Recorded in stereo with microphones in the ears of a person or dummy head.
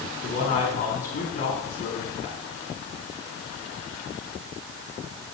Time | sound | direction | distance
0.2 | a man speaking | 50° left (ahead or behind) | 4.5 m